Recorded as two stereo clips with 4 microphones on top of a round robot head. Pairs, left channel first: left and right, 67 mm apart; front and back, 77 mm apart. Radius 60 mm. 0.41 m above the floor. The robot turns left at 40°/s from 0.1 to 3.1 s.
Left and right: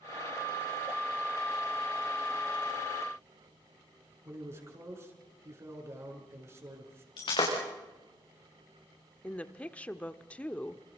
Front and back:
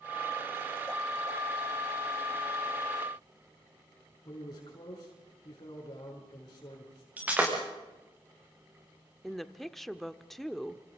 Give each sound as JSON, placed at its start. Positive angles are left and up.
{"t": 4.2, "sound": "a man speaking", "azimuth_deg": -45, "distance_m": 6.0}
{"t": 7.2, "sound": "breaking glass", "azimuth_deg": 115, "distance_m": 6.0}
{"t": 9.2, "sound": "a woman speaking", "azimuth_deg": 80, "distance_m": 0.9}